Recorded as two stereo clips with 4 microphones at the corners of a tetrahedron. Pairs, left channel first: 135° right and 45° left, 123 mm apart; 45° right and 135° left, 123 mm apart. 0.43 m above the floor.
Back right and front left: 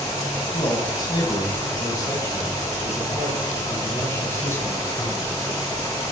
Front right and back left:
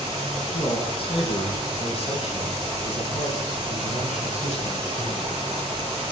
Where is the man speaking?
85° right, 3 m; by 5.4 s 60° right, 5 m.